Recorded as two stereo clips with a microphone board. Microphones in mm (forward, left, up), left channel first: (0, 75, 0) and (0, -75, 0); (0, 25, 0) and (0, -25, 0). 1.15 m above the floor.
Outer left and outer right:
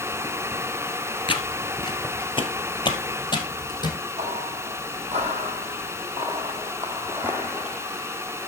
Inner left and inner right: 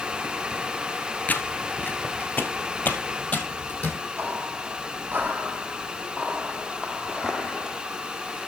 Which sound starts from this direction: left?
Footsteps, at 1.3 s.